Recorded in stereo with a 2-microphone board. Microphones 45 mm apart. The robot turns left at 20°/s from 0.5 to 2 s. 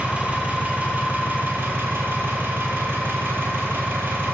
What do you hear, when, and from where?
0.0 s an engine running: 30° right, 0.8 m; by 4.3 s 60° right, 0.8 m